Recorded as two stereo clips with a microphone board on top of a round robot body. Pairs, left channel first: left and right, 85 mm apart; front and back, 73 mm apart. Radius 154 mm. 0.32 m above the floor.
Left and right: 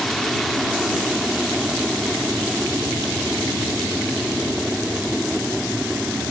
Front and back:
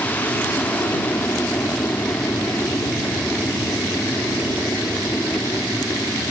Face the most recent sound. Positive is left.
turn(degrees=5)